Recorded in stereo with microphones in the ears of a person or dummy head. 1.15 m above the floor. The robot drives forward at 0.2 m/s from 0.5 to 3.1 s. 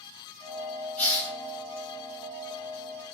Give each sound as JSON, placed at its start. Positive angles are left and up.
{"t": 1.0, "sound": "a hiss", "side_deg": 0, "distance_m": 0.8}